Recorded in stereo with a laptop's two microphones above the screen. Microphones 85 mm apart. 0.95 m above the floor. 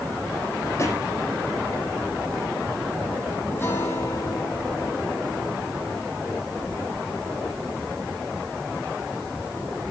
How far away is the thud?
About 9 m.